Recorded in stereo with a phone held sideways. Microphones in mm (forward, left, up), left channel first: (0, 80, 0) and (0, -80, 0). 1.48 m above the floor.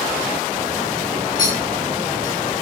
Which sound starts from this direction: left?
A clink, at 1.4 s.